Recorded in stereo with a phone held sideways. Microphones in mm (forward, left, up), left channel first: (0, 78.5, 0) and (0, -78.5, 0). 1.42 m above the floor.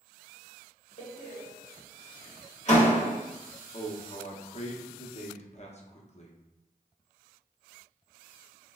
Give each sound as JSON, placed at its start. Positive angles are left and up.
{"t": 1.0, "sound": "a door slam", "side_deg": 50, "distance_m": 1.0}
{"t": 3.7, "sound": "a man speaking", "side_deg": 45, "distance_m": 0.6}